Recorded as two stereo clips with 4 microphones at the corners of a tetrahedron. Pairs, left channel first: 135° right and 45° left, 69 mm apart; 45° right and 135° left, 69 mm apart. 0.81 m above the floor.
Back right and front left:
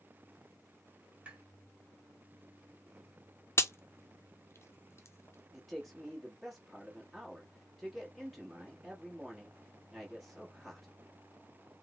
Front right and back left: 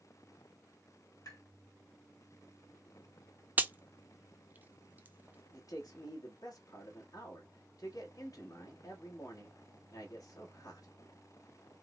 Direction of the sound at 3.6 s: 170° right.